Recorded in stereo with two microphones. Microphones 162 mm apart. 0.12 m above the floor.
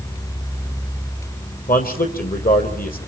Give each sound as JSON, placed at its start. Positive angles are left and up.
{"t": 1.7, "sound": "a man speaking", "side_deg": 65, "distance_m": 4.0}